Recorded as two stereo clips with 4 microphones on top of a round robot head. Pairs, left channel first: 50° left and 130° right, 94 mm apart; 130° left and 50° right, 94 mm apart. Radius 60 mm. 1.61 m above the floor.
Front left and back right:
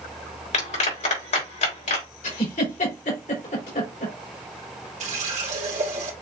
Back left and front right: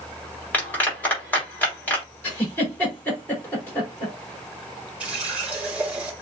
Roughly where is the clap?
Ahead left.